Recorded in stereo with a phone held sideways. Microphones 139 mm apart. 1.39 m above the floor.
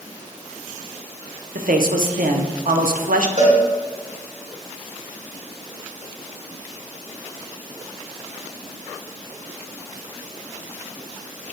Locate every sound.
1.6 s a man speaking: 85° right, 0.6 m
3.4 s a cowbell: 70° right (ahead or behind), 2.5 m